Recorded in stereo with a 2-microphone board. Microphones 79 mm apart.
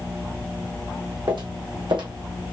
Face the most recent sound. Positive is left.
turn(degrees=-70)  # may be behind; listen again after turning